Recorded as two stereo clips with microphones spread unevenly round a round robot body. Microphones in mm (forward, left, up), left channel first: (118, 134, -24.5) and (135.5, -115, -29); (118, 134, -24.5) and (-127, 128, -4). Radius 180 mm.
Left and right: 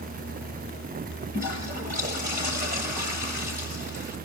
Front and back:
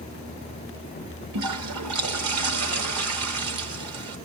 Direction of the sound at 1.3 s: 155° right.